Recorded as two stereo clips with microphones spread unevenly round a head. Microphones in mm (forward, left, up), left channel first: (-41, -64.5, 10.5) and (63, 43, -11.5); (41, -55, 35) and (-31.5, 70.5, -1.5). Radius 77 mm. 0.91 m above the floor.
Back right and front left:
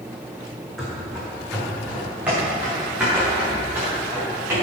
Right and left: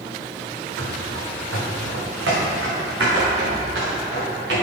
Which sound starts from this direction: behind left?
Running footsteps, at 0.8 s.